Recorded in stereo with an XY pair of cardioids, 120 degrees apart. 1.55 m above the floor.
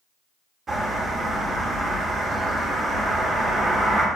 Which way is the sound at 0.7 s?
30° right.